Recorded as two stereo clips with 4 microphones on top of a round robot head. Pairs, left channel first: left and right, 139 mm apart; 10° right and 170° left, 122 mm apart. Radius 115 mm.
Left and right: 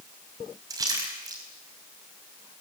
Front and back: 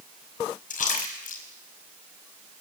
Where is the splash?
25° right, 5 m.